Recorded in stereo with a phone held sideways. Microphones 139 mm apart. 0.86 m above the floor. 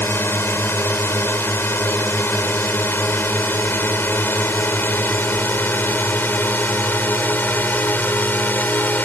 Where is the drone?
15° left (ahead or behind); by 9.1 s 10° left (ahead or behind).